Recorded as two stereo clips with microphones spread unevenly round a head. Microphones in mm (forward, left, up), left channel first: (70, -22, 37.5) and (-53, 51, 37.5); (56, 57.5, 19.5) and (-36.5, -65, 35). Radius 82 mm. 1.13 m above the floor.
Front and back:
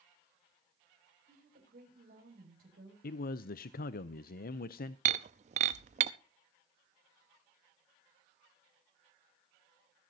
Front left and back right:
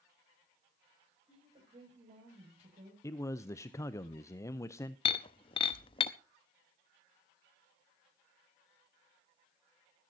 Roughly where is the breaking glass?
Left.